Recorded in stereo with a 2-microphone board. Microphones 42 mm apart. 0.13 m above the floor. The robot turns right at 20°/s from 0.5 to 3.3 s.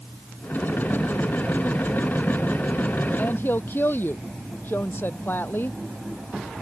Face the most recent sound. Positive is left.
turn(degrees=55)  # may be behind; listen again after turning